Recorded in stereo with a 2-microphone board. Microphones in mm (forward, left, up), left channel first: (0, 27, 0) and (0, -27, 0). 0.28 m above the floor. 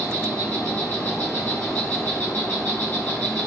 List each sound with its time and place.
0.0 s an insect: 35° left (ahead or behind), 3 m